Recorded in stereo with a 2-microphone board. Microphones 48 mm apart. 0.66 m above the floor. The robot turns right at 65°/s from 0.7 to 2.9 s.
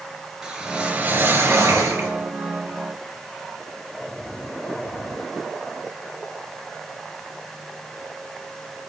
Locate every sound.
0.4 s a whoosh: 165° right, 2.5 m; by 2.1 s 70° right, 2.5 m